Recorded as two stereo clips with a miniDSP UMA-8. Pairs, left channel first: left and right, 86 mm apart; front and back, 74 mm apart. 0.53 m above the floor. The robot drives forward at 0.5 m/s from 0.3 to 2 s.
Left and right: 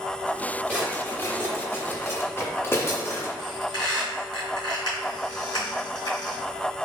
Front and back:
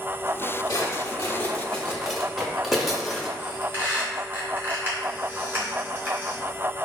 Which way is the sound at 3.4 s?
115° left.